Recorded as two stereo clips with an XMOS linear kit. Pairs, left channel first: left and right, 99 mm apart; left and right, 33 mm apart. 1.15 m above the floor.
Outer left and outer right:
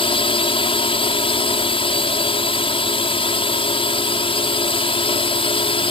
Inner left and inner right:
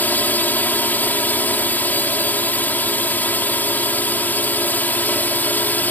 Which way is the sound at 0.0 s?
65° left (ahead or behind).